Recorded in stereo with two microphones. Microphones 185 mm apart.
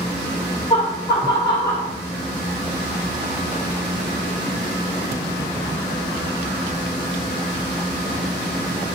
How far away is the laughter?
About 1.4 m.